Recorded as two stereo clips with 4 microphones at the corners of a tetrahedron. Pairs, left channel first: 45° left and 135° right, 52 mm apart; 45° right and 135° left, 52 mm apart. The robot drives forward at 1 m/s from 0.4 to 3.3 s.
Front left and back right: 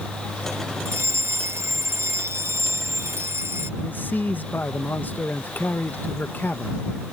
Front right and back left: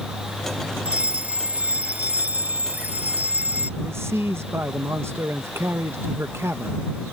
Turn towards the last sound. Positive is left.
turn(degrees=100)